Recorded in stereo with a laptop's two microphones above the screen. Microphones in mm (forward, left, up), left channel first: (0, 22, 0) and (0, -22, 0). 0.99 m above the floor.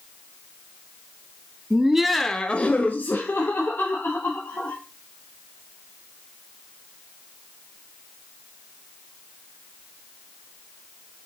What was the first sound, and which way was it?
Laughter, 20° right (ahead or behind).